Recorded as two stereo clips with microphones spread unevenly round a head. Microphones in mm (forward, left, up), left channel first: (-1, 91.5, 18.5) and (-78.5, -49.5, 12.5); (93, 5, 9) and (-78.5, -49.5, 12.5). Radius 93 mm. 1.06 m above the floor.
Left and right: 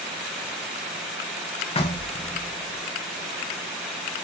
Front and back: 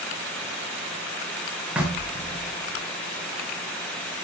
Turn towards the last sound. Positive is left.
turn(degrees=115)